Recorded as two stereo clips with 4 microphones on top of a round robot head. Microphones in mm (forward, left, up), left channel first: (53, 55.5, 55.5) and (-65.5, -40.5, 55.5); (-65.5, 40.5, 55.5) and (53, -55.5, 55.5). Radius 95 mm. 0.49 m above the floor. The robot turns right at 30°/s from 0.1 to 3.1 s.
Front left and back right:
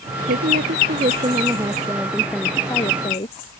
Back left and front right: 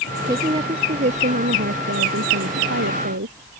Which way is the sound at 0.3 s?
110° right.